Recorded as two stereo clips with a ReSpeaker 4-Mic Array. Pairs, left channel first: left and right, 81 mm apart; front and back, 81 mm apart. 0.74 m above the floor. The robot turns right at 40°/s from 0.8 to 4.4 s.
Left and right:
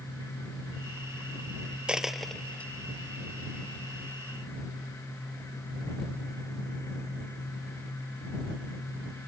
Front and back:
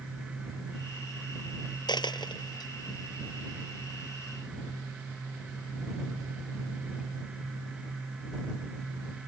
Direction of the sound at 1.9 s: 10° right.